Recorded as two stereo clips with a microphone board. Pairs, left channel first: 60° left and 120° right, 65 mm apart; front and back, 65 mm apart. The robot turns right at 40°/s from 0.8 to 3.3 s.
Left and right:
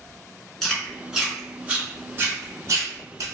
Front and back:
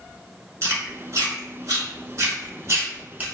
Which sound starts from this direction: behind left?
Chewing, at 0.6 s.